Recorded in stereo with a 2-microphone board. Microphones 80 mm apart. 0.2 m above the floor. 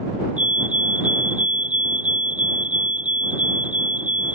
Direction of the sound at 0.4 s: 15° right (ahead or behind).